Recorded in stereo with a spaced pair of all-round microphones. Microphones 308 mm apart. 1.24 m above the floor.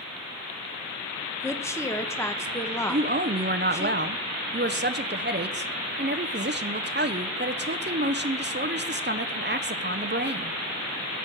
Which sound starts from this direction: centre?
A woman speaking, at 1.4 s.